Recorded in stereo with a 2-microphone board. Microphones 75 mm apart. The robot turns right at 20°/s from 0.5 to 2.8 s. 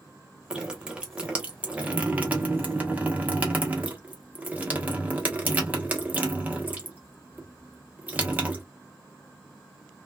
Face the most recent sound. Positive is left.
turn(degrees=-20)  # may be behind; listen again after turning